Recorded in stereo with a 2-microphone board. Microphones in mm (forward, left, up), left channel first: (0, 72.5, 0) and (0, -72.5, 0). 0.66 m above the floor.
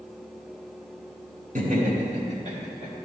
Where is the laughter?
70° right (ahead or behind), 2.5 m; by 3.0 s 45° right (ahead or behind), 3 m.